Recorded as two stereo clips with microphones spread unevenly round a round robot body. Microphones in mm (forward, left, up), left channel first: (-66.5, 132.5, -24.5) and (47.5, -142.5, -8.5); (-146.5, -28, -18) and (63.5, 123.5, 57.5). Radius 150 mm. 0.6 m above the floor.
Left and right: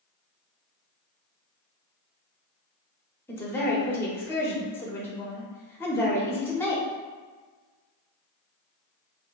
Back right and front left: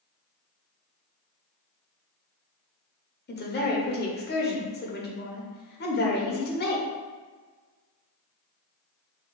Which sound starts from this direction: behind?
A woman speaking, at 3.3 s.